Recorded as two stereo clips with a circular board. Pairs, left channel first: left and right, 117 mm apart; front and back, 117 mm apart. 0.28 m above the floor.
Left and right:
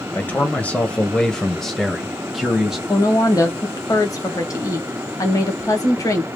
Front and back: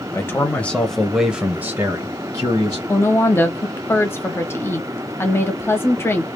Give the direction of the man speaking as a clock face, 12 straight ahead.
11 o'clock.